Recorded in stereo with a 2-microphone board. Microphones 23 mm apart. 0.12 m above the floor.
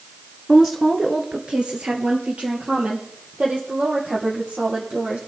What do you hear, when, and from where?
0.5 s a woman speaking: 10° right (ahead or behind), 1.4 m; by 5.2 s 80° right, 5.5 m